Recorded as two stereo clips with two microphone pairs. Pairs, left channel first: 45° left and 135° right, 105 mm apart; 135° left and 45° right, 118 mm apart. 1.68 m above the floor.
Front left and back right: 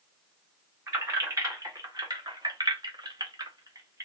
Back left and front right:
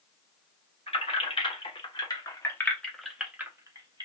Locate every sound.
0.9 s keys jangling: 165° left, 1.3 m; by 4.1 s 80° right, 0.8 m